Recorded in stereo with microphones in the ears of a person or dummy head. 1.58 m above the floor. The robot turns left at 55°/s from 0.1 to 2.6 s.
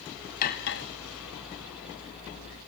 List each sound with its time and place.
0.4 s cutlery clinking: 40° left (ahead or behind), 1.0 m; by 0.8 s 50° left (ahead or behind), 1.0 m